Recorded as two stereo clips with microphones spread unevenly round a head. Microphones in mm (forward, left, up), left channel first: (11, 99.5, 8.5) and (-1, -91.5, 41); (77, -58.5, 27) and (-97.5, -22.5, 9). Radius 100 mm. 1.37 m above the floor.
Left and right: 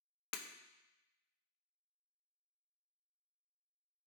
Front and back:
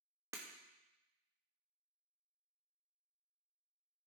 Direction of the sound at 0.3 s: 90° left.